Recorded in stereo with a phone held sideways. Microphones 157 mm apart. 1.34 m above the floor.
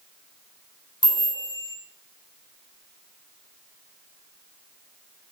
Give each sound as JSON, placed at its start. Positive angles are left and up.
{"t": 1.0, "sound": "a chime", "side_deg": 30, "distance_m": 2.5}